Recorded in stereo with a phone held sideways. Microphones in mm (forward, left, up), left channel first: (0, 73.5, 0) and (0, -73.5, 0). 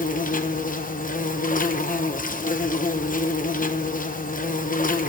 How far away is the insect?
About 0.9 m.